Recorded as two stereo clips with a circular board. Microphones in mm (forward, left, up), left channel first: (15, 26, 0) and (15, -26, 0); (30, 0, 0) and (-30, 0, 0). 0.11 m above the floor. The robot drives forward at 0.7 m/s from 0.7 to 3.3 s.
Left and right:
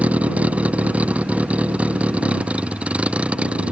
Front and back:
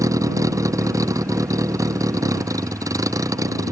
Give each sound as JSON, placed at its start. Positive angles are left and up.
{"t": 0.0, "sound": "a vehicle", "azimuth_deg": -155}